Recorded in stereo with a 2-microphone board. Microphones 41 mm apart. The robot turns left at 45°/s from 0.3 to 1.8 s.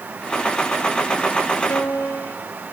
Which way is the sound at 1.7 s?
85° left.